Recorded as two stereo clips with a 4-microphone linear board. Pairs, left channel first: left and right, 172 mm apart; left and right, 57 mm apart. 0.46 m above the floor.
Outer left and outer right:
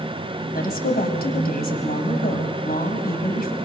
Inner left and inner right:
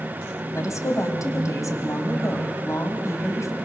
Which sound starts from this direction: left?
A woman speaking, at 0.5 s.